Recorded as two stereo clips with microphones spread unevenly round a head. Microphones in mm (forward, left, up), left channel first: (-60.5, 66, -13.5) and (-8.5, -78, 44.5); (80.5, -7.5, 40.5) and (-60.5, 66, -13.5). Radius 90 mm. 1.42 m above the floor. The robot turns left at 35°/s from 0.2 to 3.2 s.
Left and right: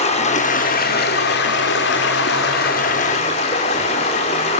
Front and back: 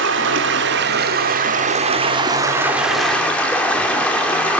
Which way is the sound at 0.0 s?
160° left.